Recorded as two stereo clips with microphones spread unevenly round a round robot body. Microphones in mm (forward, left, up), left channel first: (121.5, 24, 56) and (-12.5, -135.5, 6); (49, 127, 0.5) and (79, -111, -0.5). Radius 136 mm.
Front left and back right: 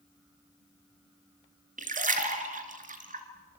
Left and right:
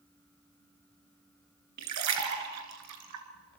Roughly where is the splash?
Right.